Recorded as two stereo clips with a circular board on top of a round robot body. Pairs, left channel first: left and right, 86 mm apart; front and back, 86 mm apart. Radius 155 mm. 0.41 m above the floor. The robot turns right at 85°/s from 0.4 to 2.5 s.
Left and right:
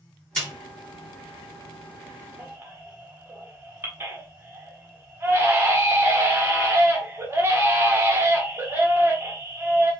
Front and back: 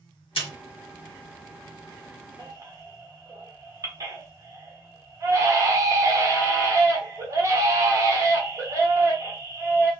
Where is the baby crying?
150° right, 1.3 m; by 9.9 s 145° right, 1.3 m.